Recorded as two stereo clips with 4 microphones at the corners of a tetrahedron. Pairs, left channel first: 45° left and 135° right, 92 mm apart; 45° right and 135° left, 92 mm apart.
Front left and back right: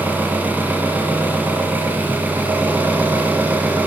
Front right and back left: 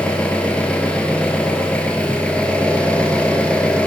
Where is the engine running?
100° right, 1.4 m.